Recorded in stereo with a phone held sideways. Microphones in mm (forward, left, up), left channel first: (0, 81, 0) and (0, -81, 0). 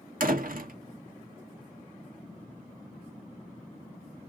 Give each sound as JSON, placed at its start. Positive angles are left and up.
{"t": 0.2, "sound": "a door slam", "side_deg": -70, "distance_m": 1.1}